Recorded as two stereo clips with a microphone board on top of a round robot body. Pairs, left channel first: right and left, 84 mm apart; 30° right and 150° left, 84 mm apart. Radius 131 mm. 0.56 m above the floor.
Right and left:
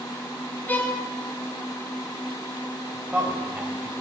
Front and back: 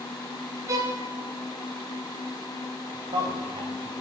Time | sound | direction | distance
0.7 | a violin | 160° right | 1.8 m
2.9 | a man speaking | 165° left | 4 m